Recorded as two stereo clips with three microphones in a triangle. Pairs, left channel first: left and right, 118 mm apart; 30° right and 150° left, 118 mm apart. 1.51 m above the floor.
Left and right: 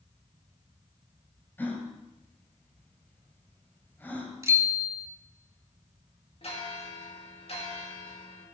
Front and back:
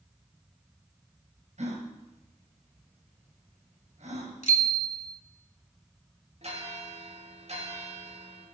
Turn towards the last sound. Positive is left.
turn(degrees=120)